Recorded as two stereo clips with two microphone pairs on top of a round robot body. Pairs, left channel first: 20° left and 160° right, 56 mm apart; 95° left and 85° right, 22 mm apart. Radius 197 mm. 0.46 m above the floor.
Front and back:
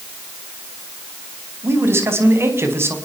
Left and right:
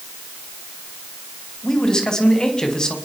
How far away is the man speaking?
About 5.5 m.